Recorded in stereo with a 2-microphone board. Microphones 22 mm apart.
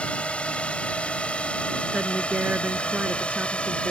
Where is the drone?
60° left (ahead or behind); by 3.9 s 55° left (ahead or behind).